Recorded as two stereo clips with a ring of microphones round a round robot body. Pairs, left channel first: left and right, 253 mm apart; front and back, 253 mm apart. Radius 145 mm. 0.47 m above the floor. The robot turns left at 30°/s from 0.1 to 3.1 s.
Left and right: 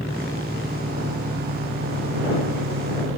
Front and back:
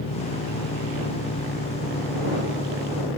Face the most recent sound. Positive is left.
turn(degrees=-90)